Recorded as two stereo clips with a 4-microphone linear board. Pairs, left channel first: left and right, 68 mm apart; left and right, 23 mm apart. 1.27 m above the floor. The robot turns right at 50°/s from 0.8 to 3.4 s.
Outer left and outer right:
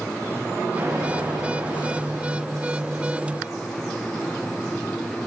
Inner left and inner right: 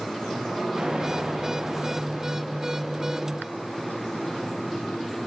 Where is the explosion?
130° right, 4 m; by 2.4 s 50° right, 4 m.